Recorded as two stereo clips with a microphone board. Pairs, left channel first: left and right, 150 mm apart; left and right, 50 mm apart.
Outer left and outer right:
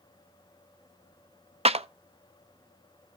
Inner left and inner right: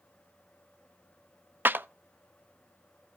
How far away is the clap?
About 0.5 m.